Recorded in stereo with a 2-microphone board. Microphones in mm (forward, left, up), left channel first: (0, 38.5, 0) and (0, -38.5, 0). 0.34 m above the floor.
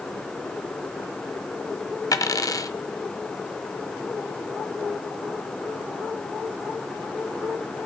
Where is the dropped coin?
50° left (ahead or behind), 1.0 m.